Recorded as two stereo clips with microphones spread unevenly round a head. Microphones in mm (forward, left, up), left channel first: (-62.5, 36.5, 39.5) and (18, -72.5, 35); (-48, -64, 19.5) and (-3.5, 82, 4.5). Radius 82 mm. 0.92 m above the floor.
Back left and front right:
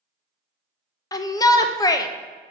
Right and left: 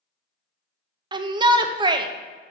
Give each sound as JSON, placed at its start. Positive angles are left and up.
{"t": 1.1, "sound": "a shout", "azimuth_deg": 85, "distance_m": 0.7}